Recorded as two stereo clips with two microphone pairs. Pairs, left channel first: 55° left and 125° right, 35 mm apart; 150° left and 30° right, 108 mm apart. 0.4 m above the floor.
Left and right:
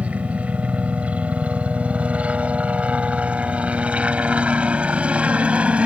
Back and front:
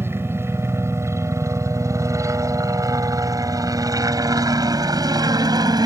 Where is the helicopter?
90° right; by 5.9 s 75° right.